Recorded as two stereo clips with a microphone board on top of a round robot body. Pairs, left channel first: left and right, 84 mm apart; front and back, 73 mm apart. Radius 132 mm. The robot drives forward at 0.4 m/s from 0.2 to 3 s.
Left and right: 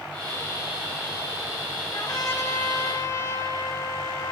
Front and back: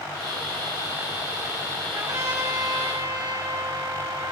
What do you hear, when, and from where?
1.9 s a trumpet: 140° left, 5.5 m